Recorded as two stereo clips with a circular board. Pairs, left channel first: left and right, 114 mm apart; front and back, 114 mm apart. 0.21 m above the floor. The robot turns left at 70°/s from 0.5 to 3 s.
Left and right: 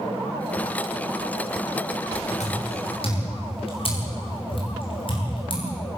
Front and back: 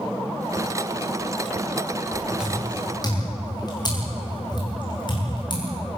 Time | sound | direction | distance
2.4 | footsteps | 100° left | 9.5 m